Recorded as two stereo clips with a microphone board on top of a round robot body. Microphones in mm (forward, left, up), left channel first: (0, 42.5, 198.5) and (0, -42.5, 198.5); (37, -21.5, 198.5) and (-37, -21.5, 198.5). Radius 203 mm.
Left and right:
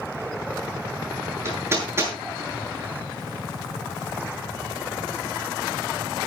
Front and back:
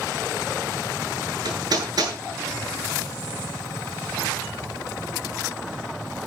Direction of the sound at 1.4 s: 150° right.